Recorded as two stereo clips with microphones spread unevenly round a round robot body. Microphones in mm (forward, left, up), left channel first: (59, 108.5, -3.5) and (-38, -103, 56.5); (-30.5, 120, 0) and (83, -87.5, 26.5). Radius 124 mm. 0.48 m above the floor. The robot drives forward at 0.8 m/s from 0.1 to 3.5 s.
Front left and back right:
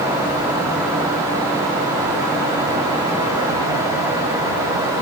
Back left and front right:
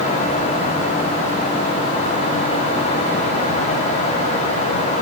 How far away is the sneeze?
No sneeze in this recording.